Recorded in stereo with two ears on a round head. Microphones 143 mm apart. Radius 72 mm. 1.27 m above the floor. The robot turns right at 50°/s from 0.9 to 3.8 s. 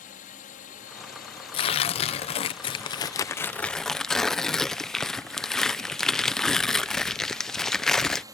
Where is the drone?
60° left; by 8.3 s 155° right.